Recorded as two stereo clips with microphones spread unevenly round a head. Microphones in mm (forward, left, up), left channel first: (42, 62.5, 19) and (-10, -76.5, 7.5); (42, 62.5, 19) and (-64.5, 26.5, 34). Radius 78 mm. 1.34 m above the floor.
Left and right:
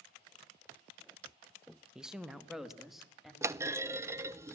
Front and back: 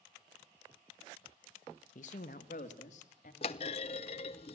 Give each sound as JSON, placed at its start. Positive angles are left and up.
{"t": 1.9, "sound": "a woman speaking", "azimuth_deg": -25, "distance_m": 1.2}
{"t": 3.4, "sound": "a clunk", "azimuth_deg": -35, "distance_m": 0.7}